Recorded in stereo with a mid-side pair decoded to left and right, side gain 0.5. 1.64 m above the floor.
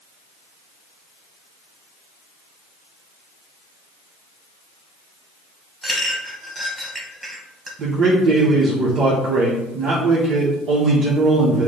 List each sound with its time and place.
5.8 s a clink: straight ahead, 1.5 m
7.8 s a man speaking: 60° right, 1.0 m